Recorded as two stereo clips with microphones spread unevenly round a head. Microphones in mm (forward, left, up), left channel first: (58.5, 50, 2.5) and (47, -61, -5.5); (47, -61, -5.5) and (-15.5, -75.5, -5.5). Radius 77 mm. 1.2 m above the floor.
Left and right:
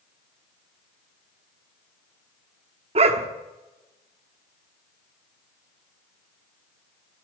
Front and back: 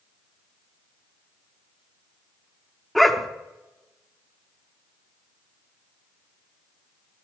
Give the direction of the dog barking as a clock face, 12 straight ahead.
3 o'clock.